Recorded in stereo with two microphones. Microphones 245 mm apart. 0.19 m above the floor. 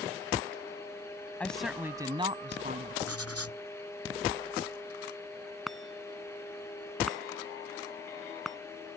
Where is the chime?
Centre (ahead or behind).